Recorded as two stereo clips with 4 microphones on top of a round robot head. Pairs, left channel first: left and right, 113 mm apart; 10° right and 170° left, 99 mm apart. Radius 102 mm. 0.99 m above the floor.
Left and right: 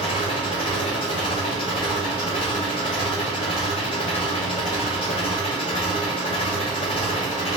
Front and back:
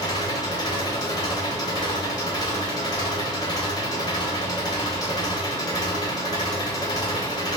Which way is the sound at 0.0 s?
35° left.